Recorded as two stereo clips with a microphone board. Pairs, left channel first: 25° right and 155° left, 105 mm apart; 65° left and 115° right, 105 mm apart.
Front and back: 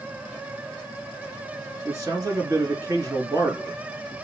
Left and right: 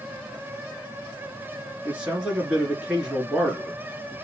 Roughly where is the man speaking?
Behind.